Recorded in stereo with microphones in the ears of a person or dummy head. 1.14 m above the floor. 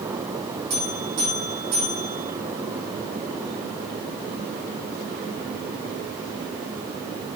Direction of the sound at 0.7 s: 50° right (ahead or behind).